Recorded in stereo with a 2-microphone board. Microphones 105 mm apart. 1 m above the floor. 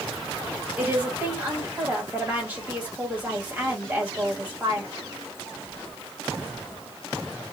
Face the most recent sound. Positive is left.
turn(degrees=-15)  # may be behind; listen again after turning